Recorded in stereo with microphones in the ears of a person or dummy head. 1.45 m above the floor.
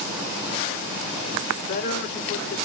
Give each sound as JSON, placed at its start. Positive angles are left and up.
{"t": 1.6, "sound": "a man speaking", "side_deg": 50, "distance_m": 0.7}